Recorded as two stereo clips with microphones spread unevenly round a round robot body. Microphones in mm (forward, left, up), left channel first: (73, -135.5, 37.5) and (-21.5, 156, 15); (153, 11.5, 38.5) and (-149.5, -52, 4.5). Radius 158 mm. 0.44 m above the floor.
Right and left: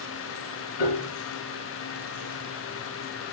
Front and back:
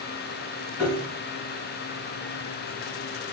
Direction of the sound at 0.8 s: 75° right.